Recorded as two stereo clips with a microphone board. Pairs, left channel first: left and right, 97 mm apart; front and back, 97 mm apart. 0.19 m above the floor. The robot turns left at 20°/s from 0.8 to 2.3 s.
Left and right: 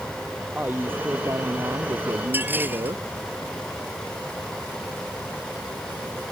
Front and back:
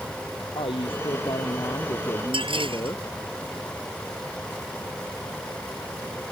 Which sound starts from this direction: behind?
Dishes clattering, at 2.3 s.